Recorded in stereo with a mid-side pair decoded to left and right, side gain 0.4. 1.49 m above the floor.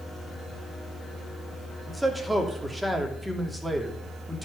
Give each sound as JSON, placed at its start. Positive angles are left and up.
{"t": 1.9, "sound": "a man speaking", "azimuth_deg": -10, "distance_m": 3.0}